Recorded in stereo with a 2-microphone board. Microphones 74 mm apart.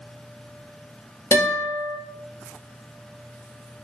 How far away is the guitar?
About 2.5 m.